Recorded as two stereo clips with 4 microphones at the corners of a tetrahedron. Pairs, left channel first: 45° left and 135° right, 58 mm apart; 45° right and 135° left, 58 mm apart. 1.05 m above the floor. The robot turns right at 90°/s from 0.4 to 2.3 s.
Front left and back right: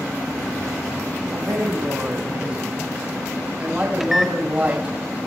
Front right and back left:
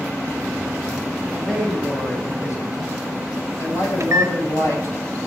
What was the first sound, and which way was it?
A man speaking, 155° right.